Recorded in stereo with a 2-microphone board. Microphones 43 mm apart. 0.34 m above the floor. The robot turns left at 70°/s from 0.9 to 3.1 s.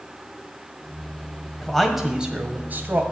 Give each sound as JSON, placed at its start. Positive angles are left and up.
{"t": 1.6, "sound": "a man speaking", "azimuth_deg": 20, "distance_m": 1.8}